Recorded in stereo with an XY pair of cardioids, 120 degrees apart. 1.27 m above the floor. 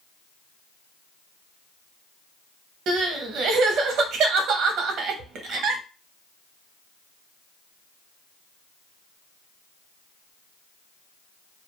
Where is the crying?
70° right, 0.6 m.